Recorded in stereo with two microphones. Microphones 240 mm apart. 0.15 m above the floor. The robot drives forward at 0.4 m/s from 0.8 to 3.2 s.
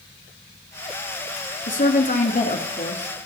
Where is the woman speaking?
35° left (ahead or behind), 1.3 m; by 3.1 s 30° left (ahead or behind), 1.5 m.